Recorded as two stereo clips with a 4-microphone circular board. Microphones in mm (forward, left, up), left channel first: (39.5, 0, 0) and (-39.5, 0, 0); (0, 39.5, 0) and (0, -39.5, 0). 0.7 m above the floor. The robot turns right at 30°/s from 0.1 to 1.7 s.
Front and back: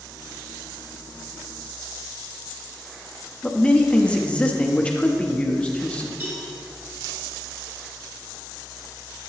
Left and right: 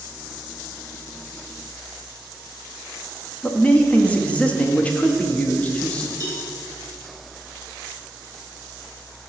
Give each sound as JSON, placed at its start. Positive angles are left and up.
{"t": 3.4, "sound": "a man speaking", "azimuth_deg": 50, "distance_m": 0.6}
{"t": 6.2, "sound": "a cowbell", "azimuth_deg": 125, "distance_m": 1.7}